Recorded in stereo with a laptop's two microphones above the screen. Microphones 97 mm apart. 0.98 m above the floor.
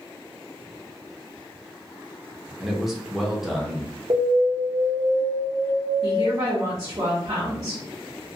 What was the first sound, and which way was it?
A man speaking, centre (ahead or behind).